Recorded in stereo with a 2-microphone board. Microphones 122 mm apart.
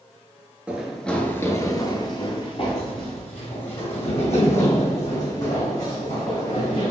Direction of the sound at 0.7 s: 10° right (ahead or behind).